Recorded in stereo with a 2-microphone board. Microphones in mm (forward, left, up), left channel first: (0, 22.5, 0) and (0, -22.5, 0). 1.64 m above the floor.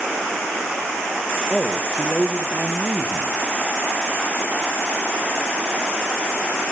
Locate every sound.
1.5 s a man speaking: 15° right (ahead or behind), 1.5 m